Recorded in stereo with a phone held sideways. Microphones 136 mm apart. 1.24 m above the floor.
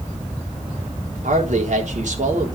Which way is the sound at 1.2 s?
65° right (ahead or behind).